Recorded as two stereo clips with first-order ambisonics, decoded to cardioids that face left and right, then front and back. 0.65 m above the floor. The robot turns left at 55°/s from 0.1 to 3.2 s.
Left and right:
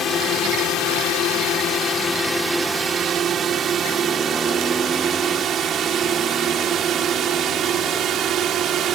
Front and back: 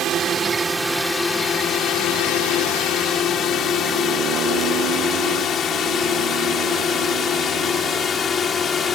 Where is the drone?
140° left; by 9.0 s 55° right.